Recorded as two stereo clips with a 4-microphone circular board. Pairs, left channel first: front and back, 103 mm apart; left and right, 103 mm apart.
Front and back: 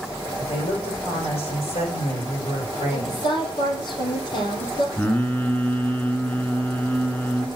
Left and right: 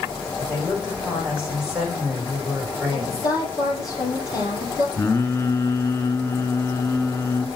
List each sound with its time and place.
0.4 s a woman speaking: 10° right, 7 m
2.9 s a woman speaking: 40° left, 4.5 m
5.0 s singing: 60° left, 1.4 m